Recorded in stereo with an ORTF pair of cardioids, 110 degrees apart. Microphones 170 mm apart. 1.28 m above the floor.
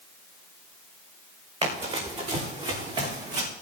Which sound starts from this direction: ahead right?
Running footsteps, at 1.6 s.